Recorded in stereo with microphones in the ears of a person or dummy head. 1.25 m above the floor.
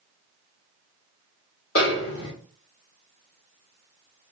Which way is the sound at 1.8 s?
60° left (ahead or behind).